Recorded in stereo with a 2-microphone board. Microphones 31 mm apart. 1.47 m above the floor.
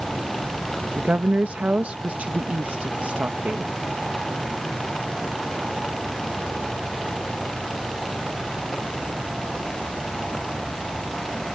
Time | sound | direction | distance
0.9 | a woman speaking | 60° right (ahead or behind) | ?